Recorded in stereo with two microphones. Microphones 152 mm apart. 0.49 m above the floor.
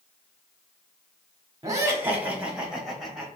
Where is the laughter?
25° right (ahead or behind), 1.0 m; by 3.3 s centre (ahead or behind), 2 m.